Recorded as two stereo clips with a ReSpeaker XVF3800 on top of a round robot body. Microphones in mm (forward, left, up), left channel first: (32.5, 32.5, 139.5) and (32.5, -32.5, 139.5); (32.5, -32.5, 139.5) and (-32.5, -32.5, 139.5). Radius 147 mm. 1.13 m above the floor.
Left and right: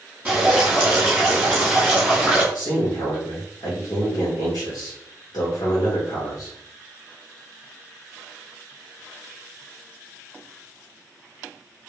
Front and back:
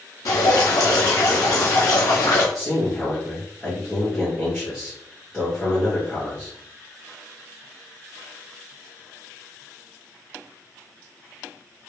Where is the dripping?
15° right, 1.0 m.